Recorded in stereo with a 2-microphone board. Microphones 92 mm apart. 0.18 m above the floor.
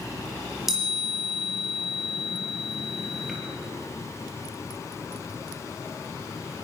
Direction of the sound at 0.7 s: 5° right (ahead or behind).